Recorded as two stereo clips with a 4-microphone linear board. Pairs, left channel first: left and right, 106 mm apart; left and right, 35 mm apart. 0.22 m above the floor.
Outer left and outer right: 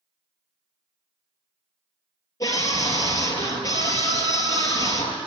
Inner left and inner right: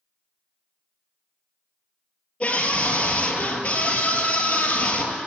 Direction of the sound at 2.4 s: 30° left (ahead or behind).